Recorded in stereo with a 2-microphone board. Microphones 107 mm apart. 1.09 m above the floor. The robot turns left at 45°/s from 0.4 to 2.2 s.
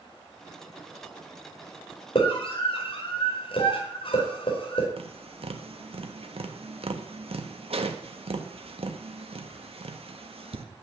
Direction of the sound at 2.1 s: 55° left (ahead or behind).